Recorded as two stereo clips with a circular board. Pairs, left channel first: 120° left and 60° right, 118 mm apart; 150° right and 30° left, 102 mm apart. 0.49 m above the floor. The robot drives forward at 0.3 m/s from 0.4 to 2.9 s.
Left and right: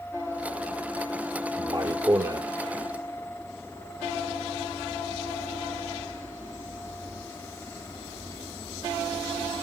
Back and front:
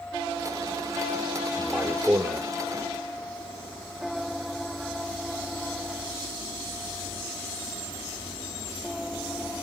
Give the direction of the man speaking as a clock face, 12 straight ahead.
1 o'clock.